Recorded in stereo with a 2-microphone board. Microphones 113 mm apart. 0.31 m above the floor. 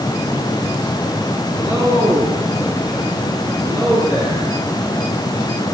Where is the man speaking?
30° right (ahead or behind), 5.5 m; by 4.6 s 40° right (ahead or behind), 8.5 m.